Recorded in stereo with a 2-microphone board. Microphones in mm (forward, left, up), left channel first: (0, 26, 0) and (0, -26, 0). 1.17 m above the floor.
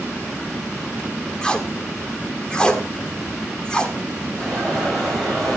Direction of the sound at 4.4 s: Centre (ahead or behind).